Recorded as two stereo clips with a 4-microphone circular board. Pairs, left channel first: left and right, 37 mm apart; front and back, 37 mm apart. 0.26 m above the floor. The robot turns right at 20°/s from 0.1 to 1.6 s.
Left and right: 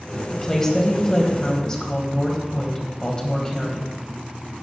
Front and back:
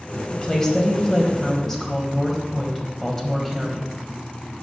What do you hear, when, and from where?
0.3 s a woman speaking: 40° left, 1.1 m; by 3.9 s 65° left, 1.1 m